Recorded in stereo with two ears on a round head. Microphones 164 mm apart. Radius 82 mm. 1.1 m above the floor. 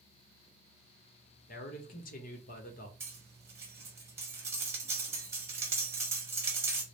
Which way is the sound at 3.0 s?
15° right (ahead or behind).